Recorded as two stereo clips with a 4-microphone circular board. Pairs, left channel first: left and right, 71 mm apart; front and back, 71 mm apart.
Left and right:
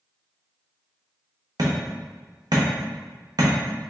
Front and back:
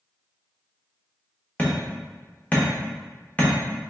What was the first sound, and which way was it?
Hammering, 70° right.